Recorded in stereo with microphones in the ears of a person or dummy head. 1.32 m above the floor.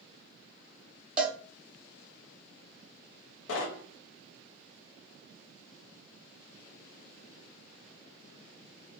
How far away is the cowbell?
About 0.8 m.